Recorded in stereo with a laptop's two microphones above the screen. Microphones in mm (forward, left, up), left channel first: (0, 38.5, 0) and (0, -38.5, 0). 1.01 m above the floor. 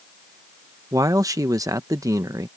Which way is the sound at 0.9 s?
45° right (ahead or behind).